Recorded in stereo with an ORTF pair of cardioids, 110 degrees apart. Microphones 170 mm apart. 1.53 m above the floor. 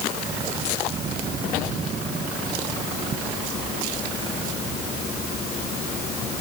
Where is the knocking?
No knocking in this recording.